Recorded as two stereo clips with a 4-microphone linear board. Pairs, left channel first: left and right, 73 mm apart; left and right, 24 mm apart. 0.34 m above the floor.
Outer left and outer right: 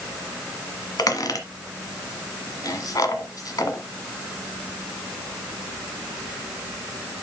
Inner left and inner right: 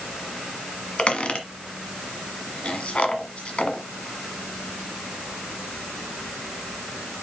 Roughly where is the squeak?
Left.